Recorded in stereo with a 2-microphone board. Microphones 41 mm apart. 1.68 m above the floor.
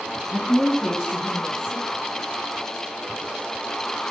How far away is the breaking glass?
No breaking glass in this recording.